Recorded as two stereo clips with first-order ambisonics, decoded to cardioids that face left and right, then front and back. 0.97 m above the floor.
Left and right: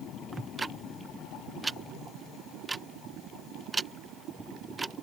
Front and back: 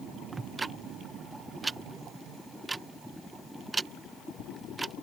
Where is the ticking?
130° right.